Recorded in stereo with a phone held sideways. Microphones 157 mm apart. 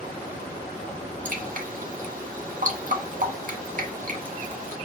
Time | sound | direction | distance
1.2 | dripping | 55° right (ahead or behind) | 0.9 m